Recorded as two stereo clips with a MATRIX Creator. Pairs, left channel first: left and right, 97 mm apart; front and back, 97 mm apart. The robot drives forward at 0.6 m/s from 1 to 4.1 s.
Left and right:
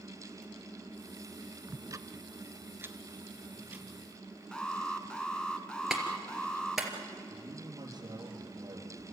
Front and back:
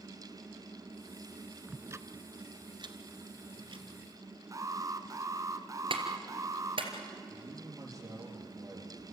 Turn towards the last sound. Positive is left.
turn(degrees=-130)